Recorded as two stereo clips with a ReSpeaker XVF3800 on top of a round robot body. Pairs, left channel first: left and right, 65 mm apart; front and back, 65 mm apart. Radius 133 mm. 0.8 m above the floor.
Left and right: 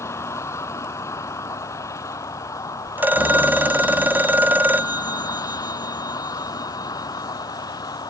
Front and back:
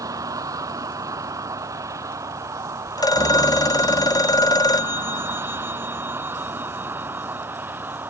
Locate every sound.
0.0 s a vehicle: 140° left; by 8.1 s 115° left
3.0 s a phone ringing: 25° right